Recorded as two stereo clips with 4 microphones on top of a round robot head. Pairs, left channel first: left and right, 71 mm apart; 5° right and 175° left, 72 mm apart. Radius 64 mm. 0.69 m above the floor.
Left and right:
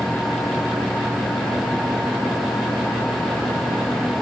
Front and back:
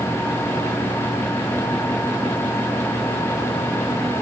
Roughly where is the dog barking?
I don't hear a dog barking.